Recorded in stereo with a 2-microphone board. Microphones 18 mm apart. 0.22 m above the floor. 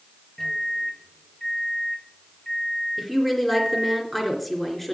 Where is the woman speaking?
10° left (ahead or behind), 3 m.